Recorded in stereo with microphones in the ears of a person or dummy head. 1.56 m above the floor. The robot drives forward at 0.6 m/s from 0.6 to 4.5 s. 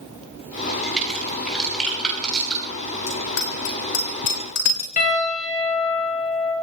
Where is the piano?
50° left (ahead or behind), 6.5 m.